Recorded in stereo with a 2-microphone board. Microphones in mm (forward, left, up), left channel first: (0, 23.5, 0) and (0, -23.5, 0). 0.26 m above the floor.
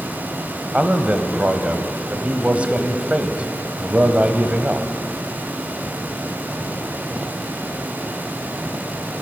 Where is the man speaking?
30° right (ahead or behind), 1.0 m.